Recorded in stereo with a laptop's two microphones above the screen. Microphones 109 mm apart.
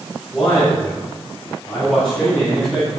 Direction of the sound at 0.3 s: Centre (ahead or behind).